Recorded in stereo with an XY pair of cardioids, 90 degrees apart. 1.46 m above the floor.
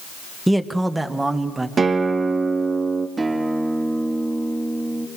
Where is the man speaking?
5° right, 1.6 m; by 1.7 s 25° right, 2.5 m.